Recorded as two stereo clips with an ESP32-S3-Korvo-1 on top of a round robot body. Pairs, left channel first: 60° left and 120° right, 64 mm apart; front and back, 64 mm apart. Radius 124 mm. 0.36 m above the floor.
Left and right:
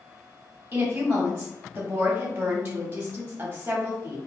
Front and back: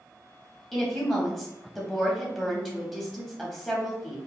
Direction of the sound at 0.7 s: 80° right.